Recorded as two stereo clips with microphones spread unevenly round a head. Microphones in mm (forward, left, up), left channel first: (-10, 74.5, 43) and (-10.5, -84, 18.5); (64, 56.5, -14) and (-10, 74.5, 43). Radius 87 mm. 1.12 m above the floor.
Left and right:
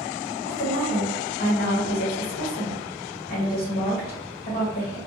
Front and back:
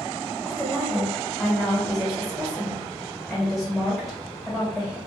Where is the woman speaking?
50° left, 1.2 m.